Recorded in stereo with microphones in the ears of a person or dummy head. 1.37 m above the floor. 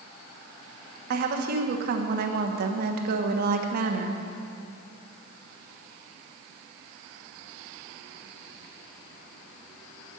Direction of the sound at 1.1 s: 50° right (ahead or behind).